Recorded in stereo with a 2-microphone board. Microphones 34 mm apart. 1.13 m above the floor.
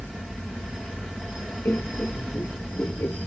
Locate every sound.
1.6 s laughter: 75° left (ahead or behind)